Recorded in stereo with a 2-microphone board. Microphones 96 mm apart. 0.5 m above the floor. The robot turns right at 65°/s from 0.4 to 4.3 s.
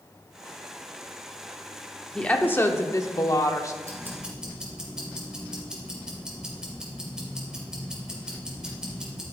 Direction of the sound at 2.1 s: 10° left.